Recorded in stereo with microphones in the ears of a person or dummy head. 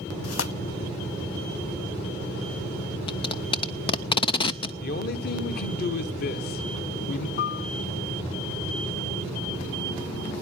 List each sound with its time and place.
0.2 s tearing paper: 80° left, 0.8 m
3.1 s tape being pulled: 30° left (ahead or behind), 0.5 m
4.8 s a man speaking: 60° left (ahead or behind), 1.2 m
7.4 s a piano: 50° left (ahead or behind), 0.5 m